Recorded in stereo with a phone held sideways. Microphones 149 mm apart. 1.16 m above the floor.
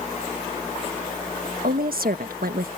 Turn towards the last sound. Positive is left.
turn(degrees=-75)  # may be behind; listen again after turning